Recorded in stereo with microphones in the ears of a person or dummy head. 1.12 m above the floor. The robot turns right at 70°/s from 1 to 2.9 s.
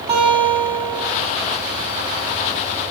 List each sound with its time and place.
0.1 s a guitar: 30° right (ahead or behind), 1.5 m; by 1.1 s 40° right (ahead or behind), 1.5 m